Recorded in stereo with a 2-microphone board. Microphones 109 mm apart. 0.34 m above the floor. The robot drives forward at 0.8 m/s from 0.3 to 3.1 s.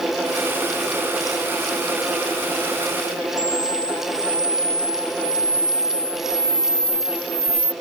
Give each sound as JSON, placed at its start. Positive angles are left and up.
{"t": 3.4, "sound": "a camera shutter", "side_deg": -10}